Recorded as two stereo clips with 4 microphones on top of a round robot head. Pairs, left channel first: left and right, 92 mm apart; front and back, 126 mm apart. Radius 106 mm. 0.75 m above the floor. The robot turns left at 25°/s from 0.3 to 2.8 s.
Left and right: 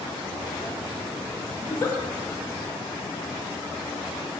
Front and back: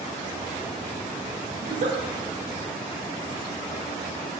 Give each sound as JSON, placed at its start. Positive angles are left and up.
{"t": 1.6, "sound": "a giggle", "azimuth_deg": 160, "distance_m": 0.5}